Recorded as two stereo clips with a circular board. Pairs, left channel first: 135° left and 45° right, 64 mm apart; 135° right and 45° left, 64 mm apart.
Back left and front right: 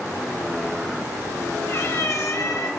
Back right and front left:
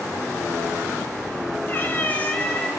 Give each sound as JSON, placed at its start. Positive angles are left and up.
{"t": 1.7, "sound": "a cat meowing", "azimuth_deg": 175, "distance_m": 2.5}